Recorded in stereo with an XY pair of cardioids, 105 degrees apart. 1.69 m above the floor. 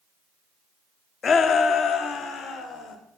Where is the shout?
45° left, 0.6 m; by 3.0 s 70° left, 1.8 m.